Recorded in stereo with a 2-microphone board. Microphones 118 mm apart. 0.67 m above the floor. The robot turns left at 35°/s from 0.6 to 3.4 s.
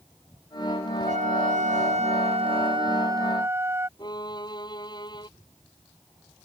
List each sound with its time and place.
1.1 s a trumpet: 75° right; by 3.9 s 160° right
4.0 s a violin: 35° left (ahead or behind)